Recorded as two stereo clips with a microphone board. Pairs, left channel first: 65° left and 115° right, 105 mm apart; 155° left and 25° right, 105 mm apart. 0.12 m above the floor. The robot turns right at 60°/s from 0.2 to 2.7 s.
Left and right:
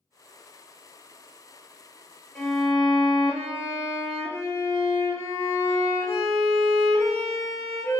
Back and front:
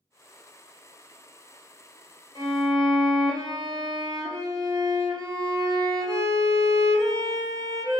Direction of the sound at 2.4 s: 5° right.